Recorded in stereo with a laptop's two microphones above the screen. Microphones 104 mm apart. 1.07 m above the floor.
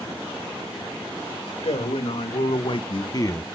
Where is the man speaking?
75° left (ahead or behind), 2.0 m; by 3.5 s 20° left (ahead or behind), 0.8 m.